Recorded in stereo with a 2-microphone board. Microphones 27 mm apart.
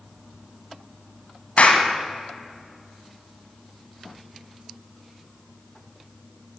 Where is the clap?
60° left (ahead or behind), 1.6 m.